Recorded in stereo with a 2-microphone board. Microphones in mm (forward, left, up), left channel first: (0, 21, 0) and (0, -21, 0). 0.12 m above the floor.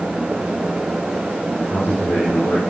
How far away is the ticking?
I don't hear ticking.